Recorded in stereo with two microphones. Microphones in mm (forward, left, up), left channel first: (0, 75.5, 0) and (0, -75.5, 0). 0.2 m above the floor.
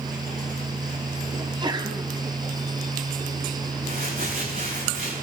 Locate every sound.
1.4 s a sneeze: 30° right (ahead or behind), 1.3 m
3.8 s crumpling: 75° right (ahead or behind), 6 m